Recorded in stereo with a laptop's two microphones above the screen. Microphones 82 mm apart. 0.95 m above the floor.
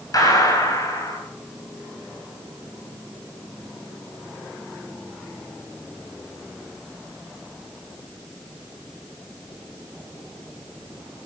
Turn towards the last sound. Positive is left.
turn(degrees=45)  # may be behind; listen again after turning